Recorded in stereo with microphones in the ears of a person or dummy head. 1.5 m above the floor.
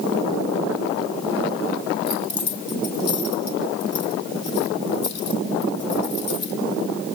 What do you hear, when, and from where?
2.1 s keys jangling: 65° left (ahead or behind), 2.5 m